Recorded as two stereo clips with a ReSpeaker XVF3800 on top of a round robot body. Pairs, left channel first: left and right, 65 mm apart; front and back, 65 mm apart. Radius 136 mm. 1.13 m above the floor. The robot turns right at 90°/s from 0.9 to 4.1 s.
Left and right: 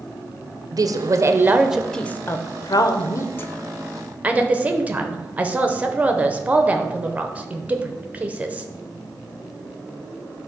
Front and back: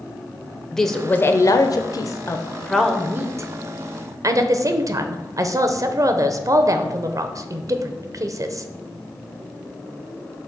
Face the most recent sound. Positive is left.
turn(degrees=-155)